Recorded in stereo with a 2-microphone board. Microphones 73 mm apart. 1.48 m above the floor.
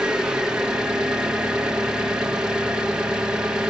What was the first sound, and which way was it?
An engine running, 10° right (ahead or behind).